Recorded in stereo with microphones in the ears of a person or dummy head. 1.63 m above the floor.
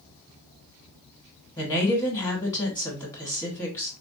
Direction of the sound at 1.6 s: 20° left (ahead or behind).